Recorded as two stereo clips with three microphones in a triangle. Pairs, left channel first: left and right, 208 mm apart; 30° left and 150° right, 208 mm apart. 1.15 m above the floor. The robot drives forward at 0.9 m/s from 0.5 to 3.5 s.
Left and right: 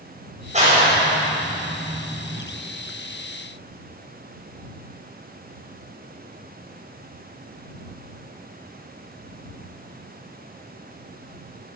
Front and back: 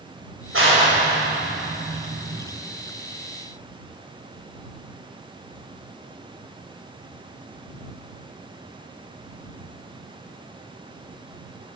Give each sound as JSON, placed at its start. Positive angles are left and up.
{"t": 0.5, "sound": "a clap", "azimuth_deg": -145, "distance_m": 5.5}